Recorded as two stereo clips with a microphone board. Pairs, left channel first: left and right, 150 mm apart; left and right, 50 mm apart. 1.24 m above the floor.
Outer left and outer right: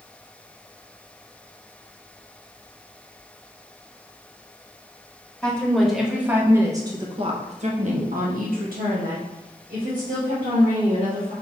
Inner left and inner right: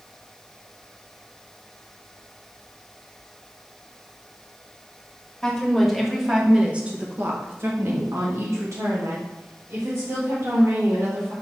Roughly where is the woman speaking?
Centre.